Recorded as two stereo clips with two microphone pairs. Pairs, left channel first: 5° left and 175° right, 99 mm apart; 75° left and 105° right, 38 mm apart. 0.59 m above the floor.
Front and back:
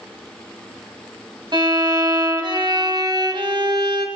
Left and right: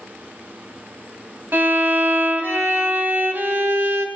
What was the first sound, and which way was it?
A violin, 135° right.